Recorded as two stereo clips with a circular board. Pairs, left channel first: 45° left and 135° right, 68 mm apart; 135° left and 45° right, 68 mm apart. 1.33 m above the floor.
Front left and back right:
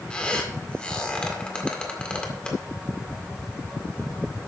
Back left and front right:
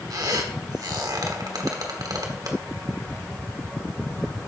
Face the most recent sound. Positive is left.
turn(degrees=-30)